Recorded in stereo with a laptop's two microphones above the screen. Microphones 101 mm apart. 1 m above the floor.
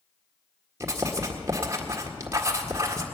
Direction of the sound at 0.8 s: 30° right (ahead or behind).